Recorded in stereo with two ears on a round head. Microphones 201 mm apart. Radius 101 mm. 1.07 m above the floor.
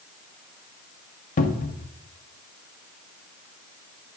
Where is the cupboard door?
35° left (ahead or behind), 0.7 m.